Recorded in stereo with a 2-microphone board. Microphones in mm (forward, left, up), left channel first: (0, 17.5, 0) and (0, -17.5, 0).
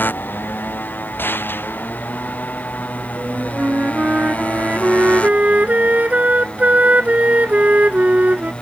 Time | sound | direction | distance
0.0 | a motorcycle | 65° left (ahead or behind) | ?
1.2 | a gunshot | 75° left (ahead or behind) | ?
3.2 | a flute | 45° right (ahead or behind) | ?